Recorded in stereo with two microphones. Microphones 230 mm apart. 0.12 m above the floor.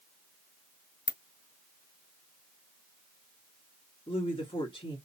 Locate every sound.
1.1 s a ringtone: 50° left (ahead or behind), 0.7 m
4.1 s a woman speaking: 25° left (ahead or behind), 1.5 m